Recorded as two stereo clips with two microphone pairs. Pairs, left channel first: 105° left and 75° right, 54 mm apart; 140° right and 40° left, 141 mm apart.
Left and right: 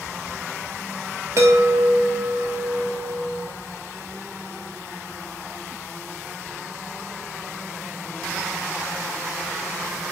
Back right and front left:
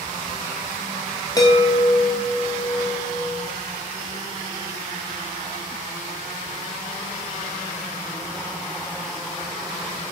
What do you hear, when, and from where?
1.4 s a chime: 85° right, 0.9 m